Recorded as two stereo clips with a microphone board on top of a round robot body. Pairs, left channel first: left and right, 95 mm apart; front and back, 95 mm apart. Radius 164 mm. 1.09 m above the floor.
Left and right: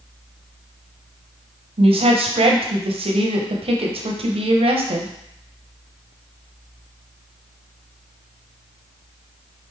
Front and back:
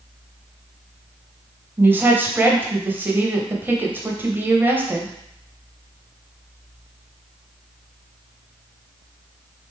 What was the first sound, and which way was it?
A woman speaking, 110° right.